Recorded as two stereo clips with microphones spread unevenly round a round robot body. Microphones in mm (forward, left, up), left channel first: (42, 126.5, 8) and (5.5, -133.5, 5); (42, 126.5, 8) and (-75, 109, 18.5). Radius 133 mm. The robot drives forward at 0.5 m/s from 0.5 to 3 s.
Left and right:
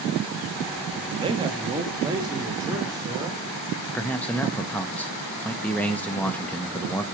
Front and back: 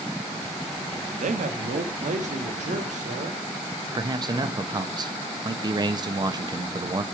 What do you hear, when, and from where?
1.2 s a man speaking: 170° right, 0.8 m; by 3.4 s 175° right, 1.7 m
4.0 s a man speaking: 165° left, 0.8 m